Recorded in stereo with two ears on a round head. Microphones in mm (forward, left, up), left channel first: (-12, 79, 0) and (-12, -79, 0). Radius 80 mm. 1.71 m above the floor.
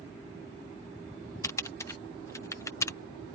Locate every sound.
1.4 s typing on a keyboard: 15° left (ahead or behind)